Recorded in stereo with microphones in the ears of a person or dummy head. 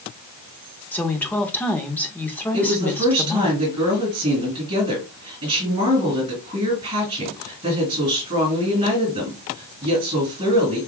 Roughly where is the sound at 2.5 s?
Right.